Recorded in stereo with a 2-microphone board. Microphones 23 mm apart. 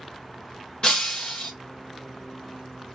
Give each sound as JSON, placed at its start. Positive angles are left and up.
{"t": 0.8, "sound": "breaking glass", "side_deg": 35, "distance_m": 1.3}